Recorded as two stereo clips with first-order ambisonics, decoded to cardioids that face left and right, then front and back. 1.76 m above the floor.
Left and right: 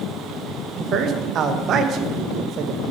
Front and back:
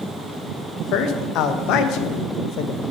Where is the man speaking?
35° right, 0.5 m.